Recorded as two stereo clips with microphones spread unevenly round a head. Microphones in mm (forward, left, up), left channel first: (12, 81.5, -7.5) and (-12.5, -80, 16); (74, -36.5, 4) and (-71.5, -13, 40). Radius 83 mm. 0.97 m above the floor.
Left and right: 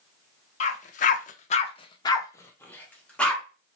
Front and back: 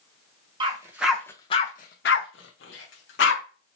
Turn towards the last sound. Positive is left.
turn(degrees=-5)